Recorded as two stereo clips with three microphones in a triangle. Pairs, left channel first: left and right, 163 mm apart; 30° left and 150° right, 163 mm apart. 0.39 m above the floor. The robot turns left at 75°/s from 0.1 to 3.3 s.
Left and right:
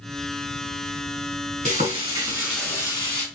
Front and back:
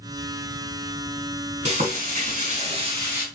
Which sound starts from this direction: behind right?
Frying, at 1.6 s.